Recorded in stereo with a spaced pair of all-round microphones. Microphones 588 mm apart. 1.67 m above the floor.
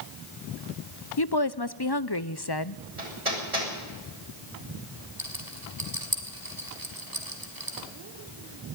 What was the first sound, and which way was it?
A woman speaking, 40° left (ahead or behind).